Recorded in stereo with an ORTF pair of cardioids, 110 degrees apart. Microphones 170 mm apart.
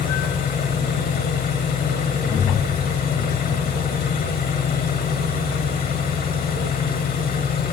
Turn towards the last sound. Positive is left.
turn(degrees=60)